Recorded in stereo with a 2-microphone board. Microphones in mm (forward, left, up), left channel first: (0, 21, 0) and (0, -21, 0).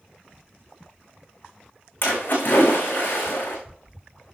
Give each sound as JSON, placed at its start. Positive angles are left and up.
{"t": 2.0, "sound": "a splash", "side_deg": 45, "distance_m": 6.0}